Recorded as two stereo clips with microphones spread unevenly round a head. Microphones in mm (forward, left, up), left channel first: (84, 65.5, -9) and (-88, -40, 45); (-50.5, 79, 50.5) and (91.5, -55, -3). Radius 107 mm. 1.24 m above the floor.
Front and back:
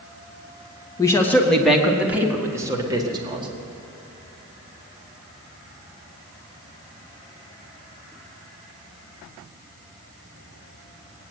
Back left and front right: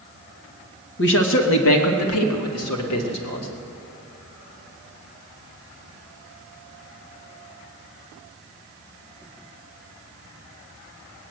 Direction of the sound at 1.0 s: 105° left.